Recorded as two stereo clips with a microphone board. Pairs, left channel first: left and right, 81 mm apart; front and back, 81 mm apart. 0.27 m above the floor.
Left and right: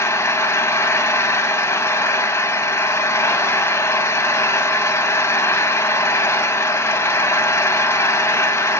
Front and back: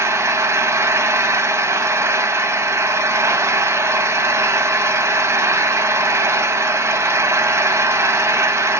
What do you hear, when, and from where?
0.0 s an engine running: 135° left, 0.8 m